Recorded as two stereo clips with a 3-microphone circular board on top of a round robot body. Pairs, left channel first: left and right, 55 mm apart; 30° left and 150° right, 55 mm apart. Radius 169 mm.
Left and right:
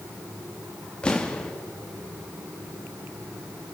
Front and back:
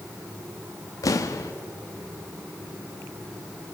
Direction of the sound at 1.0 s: 15° left.